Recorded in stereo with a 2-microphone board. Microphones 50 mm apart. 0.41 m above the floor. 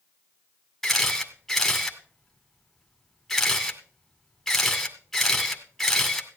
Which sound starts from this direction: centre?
A camera shutter, at 0.8 s.